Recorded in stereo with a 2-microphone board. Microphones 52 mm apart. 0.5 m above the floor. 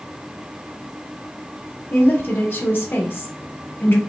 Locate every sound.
1.9 s a woman speaking: 45° left (ahead or behind), 1.2 m